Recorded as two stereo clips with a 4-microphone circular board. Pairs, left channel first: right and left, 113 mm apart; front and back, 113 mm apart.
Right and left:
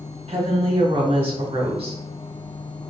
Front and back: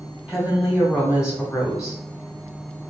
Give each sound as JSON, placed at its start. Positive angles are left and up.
{"t": 0.3, "sound": "a woman speaking", "azimuth_deg": 95, "distance_m": 1.8}